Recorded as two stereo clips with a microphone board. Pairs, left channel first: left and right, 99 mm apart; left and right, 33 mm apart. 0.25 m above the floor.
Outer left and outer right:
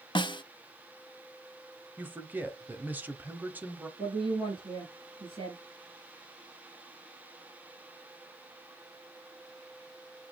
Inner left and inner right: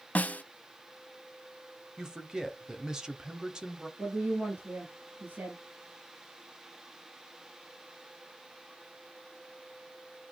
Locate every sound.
0.1 s a snare drum: 50° left (ahead or behind), 0.6 m
2.0 s a man speaking: 20° right (ahead or behind), 1.0 m
4.0 s a woman speaking: 60° right (ahead or behind), 4 m